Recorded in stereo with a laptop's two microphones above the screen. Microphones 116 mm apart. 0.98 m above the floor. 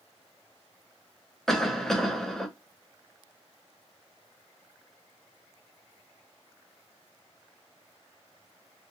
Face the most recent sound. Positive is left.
turn(degrees=5)  # may be behind; listen again after turning